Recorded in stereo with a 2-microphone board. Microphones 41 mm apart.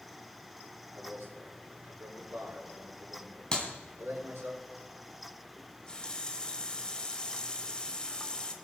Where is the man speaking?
70° right (ahead or behind), 5 m.